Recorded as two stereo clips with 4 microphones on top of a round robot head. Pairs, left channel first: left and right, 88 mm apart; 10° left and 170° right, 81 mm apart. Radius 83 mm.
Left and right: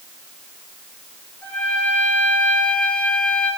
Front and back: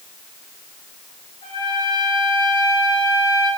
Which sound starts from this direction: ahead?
A trumpet, at 1.4 s.